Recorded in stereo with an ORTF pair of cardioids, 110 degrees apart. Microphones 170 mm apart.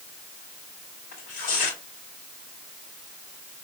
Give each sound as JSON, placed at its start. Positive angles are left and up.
{"t": 1.1, "sound": "tearing paper", "azimuth_deg": 60, "distance_m": 2.5}